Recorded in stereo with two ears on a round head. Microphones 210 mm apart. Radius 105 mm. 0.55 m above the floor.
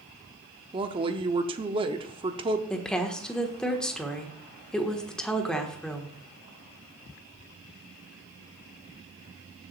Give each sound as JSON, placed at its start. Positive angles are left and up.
{"t": 0.7, "sound": "a woman speaking", "side_deg": -20, "distance_m": 0.8}
{"t": 2.7, "sound": "a woman speaking", "side_deg": 5, "distance_m": 1.4}